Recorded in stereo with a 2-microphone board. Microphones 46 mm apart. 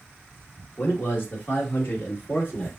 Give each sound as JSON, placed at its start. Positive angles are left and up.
{"t": 0.8, "sound": "a man speaking", "side_deg": 40, "distance_m": 1.7}